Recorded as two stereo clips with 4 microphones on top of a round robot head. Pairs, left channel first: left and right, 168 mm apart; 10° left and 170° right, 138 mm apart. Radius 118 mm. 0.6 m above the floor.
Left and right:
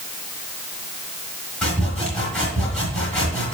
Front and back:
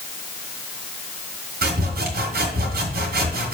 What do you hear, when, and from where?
1.6 s sawing: 175° left, 2 m